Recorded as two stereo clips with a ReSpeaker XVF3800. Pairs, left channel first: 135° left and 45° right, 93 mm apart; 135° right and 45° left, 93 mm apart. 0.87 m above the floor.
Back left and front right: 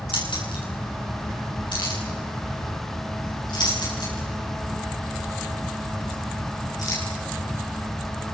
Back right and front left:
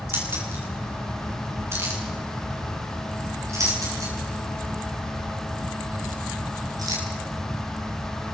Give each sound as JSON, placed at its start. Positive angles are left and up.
{"t": 0.1, "sound": "keys jangling", "azimuth_deg": 115, "distance_m": 8.0}